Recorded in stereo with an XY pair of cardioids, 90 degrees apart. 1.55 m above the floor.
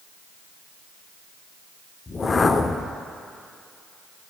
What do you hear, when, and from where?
2.1 s a whoosh: 40° left, 0.6 m